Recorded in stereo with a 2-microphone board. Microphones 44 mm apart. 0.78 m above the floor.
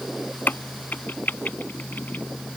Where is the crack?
45° left (ahead or behind).